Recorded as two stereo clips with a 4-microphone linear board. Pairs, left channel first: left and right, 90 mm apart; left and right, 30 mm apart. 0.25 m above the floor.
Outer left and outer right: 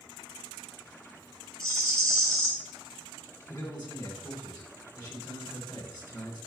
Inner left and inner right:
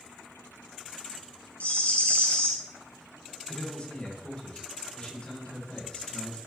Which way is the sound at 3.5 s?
50° left (ahead or behind).